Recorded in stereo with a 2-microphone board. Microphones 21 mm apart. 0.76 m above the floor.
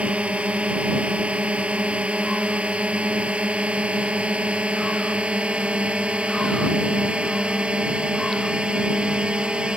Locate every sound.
0.0 s a drone: 85° right; by 9.8 s 55° right (ahead or behind)